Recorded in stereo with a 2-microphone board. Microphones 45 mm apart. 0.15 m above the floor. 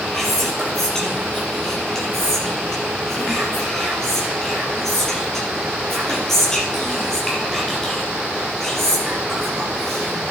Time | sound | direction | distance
0.1 | whispering | 10° left (ahead or behind) | 4 m